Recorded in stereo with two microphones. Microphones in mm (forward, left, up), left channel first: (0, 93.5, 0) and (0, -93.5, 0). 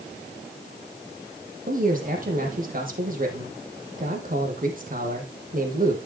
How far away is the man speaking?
About 4 m.